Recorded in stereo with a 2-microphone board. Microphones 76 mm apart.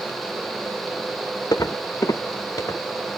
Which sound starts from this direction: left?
Footsteps, at 1.5 s.